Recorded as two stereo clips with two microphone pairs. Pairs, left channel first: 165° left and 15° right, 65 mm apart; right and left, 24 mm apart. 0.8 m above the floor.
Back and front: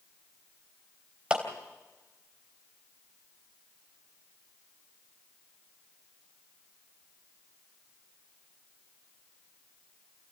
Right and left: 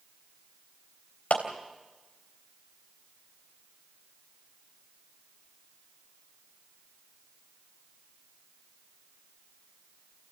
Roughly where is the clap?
Right.